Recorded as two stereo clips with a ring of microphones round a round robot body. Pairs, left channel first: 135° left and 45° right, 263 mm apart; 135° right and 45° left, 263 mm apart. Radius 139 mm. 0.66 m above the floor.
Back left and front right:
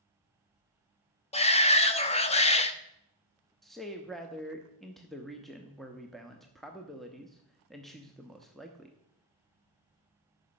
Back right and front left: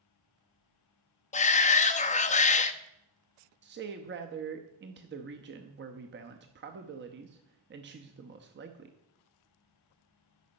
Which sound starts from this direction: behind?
A shout, at 1.3 s.